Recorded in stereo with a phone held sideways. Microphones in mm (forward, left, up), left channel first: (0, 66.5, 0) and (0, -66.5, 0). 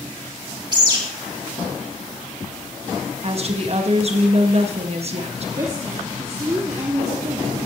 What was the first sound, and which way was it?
A bird, 30° right (ahead or behind).